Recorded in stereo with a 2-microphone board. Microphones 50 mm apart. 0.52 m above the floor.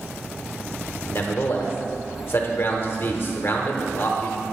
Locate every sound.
1.1 s a man speaking: 50° left (ahead or behind), 1.1 m